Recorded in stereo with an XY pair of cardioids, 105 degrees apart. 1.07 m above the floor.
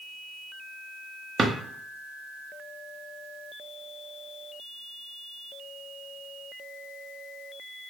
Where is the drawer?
35° right, 0.7 m.